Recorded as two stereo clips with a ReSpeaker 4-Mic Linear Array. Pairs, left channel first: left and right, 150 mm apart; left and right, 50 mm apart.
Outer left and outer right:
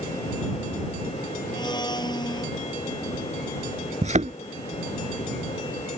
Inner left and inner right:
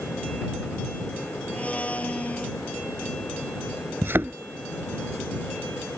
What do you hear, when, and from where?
1.5 s a blender: 30° left (ahead or behind)
4.0 s a thud: 50° right (ahead or behind)